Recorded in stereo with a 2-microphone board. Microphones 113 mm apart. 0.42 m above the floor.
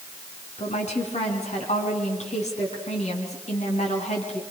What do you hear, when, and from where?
0.6 s a woman speaking: 70° left (ahead or behind), 5 m